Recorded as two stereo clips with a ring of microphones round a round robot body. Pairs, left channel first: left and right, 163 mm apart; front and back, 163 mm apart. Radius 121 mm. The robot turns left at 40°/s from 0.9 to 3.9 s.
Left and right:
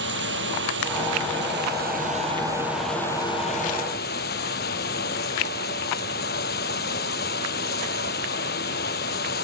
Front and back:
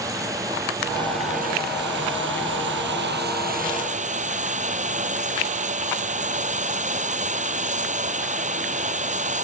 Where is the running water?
105° right; by 9.4 s 135° left.